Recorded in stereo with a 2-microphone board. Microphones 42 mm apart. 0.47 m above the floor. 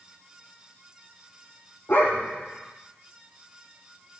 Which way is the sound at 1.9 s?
50° left (ahead or behind).